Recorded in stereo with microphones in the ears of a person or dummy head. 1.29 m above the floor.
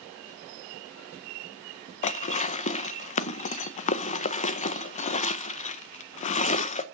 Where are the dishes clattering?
35° left (ahead or behind), 0.6 m.